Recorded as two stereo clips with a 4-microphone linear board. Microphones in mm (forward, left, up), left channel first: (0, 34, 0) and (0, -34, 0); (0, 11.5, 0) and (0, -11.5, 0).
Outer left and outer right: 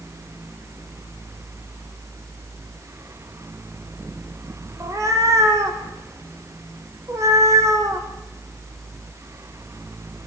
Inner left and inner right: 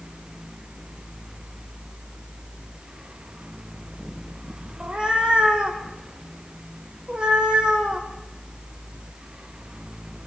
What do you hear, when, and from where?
4.8 s a cat meowing: 40° right (ahead or behind), 4 m